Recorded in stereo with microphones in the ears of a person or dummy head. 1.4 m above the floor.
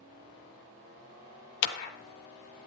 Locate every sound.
1.6 s a clap: 60° left (ahead or behind), 0.5 m